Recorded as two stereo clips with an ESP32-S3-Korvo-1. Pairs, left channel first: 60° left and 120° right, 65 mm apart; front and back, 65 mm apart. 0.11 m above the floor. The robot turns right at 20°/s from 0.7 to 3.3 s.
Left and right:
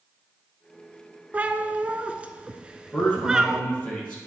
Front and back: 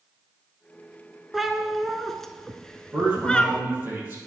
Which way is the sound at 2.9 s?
120° left.